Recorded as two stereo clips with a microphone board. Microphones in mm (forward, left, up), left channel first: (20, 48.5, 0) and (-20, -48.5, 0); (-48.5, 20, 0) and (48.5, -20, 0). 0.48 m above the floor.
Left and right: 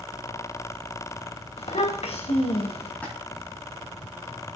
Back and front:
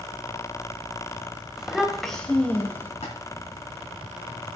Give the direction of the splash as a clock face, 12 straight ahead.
7 o'clock.